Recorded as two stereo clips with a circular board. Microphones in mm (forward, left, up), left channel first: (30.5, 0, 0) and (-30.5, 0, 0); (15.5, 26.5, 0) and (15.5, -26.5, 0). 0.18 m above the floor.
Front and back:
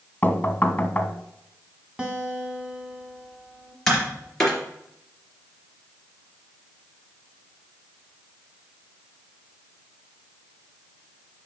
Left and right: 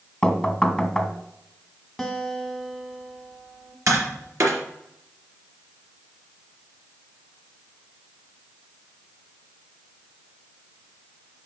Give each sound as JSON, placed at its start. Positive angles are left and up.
{"t": 0.2, "sound": "knocking", "azimuth_deg": 20, "distance_m": 1.2}
{"t": 2.0, "sound": "a guitar", "azimuth_deg": 175, "distance_m": 1.5}
{"t": 3.9, "sound": "tapping", "azimuth_deg": -80, "distance_m": 3.0}